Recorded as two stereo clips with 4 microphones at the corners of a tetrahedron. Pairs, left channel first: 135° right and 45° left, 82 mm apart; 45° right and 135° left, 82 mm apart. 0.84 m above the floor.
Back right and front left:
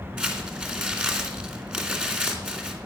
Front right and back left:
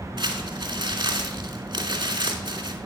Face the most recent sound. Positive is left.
turn(degrees=120)